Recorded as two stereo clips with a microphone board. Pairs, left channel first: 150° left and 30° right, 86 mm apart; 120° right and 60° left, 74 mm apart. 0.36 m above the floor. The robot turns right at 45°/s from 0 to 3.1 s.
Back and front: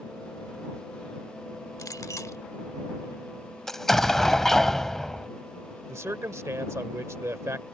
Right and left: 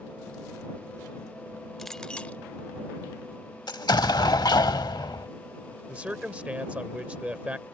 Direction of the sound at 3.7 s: 125° right.